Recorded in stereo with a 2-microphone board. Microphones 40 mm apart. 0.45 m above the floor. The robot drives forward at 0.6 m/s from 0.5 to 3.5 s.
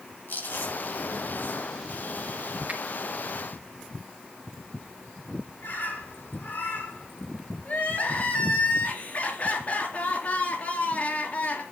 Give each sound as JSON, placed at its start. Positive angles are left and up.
{"t": 0.3, "sound": "chewing", "side_deg": 60, "distance_m": 5.5}
{"t": 2.7, "sound": "a finger snap", "side_deg": -35, "distance_m": 2.5}
{"t": 5.6, "sound": "a bird", "side_deg": 60, "distance_m": 4.5}
{"t": 7.7, "sound": "crying", "side_deg": 45, "distance_m": 3.5}